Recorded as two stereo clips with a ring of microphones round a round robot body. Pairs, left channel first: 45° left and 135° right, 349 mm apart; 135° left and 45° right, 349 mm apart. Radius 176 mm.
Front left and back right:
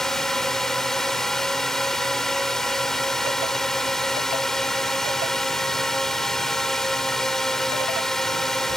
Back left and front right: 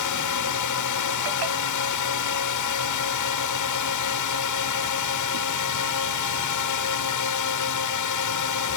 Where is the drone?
135° left.